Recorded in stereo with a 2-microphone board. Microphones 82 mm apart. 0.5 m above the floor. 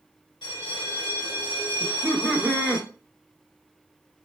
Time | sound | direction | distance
0.4 | a bell | 75° left (ahead or behind) | 0.9 m
1.8 | laughter | 15° right (ahead or behind) | 0.7 m